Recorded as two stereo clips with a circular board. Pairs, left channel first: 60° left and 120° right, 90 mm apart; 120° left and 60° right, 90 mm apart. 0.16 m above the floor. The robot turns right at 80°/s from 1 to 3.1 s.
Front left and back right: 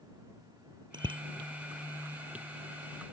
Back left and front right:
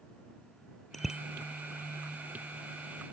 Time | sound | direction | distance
0.9 | a bicycle bell | 150° right | ?